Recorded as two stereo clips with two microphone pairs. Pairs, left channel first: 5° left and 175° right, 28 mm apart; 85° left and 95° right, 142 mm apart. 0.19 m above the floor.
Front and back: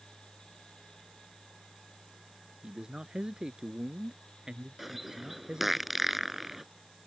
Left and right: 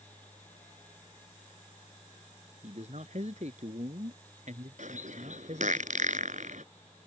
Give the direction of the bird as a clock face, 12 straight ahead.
3 o'clock.